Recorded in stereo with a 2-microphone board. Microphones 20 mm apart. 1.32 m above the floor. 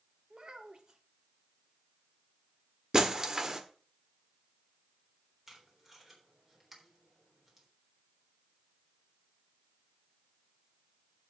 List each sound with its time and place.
0.3 s a child speaking: 40° right (ahead or behind), 1.4 m
2.9 s breaking glass: 30° right (ahead or behind), 1.4 m
5.5 s tape being pulled: 15° right (ahead or behind), 3.5 m